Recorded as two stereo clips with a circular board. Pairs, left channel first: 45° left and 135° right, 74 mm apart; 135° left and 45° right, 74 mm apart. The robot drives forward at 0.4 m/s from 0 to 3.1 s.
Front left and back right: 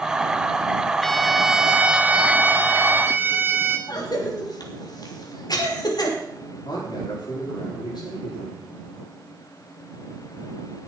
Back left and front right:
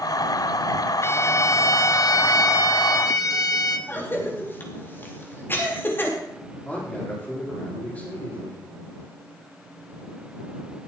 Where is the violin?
125° left, 0.6 m; by 3.8 s 165° left, 1.2 m.